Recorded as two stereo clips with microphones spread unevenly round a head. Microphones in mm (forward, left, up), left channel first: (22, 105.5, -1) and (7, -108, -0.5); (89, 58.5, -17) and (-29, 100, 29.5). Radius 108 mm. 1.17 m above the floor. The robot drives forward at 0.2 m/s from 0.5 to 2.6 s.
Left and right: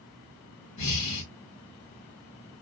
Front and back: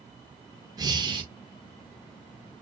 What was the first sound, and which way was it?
Breathing, 95° left.